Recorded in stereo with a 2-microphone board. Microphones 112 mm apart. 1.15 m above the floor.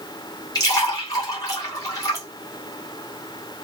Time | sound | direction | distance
0.6 | a splash | 35° left (ahead or behind) | 2 m